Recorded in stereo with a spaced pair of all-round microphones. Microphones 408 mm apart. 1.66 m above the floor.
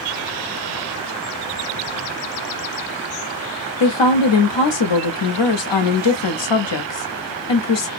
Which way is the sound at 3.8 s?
80° left.